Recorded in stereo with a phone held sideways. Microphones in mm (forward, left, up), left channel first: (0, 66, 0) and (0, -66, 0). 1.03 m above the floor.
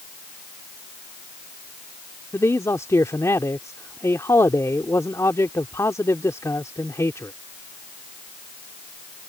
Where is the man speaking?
25° left (ahead or behind).